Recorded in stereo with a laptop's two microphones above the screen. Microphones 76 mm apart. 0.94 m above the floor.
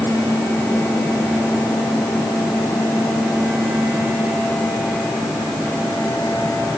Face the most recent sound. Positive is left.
No sound to turn to.